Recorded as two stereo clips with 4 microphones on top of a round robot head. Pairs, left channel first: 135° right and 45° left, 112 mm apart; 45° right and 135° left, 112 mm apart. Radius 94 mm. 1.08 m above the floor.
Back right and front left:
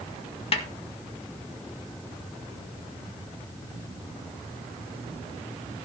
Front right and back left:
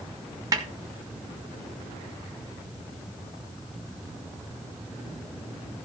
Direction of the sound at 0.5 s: 165° right.